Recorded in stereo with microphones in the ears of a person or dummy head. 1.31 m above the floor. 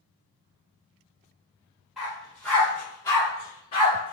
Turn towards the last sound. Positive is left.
turn(degrees=35)  # may be behind; listen again after turning